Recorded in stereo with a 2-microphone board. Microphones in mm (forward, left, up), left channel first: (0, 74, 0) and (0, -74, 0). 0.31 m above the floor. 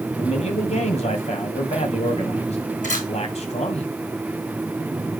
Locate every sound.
0.2 s a man speaking: 45° left (ahead or behind), 2 m
2.8 s a camera shutter: 55° left (ahead or behind), 3.5 m